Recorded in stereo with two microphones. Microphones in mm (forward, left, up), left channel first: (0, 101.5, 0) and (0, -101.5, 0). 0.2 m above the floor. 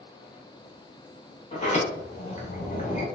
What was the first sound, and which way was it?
A sliding door, 35° left (ahead or behind).